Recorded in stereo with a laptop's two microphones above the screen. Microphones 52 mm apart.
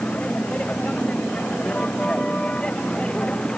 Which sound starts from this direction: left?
A vehicle, at 0.0 s.